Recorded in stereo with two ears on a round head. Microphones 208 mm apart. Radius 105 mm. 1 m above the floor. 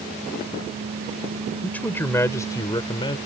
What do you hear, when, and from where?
1.6 s a man speaking: 5° left (ahead or behind); by 3.2 s 25° left (ahead or behind)